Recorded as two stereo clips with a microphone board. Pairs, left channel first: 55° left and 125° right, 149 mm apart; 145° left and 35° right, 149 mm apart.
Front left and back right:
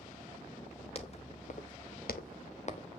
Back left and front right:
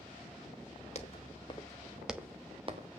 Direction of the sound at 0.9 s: 105° left.